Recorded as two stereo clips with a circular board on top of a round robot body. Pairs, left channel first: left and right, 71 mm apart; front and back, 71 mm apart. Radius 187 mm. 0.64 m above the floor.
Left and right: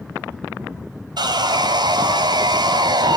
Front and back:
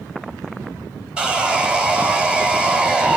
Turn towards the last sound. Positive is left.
turn(degrees=-105)